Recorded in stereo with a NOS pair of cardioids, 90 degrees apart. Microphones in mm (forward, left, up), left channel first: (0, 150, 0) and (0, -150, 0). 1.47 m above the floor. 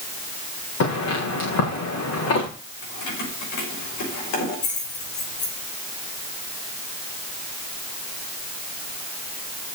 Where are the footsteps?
60° left, 7.5 m.